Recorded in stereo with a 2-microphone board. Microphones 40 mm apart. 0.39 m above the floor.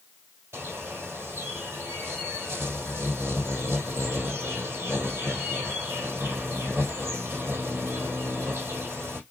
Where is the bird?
80° right, 3 m.